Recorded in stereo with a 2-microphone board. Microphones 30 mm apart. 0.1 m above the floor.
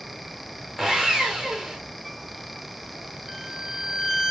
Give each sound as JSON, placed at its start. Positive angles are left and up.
{"t": 0.8, "sound": "sawing", "side_deg": 10, "distance_m": 2.5}
{"t": 3.3, "sound": "a violin", "side_deg": -15, "distance_m": 0.9}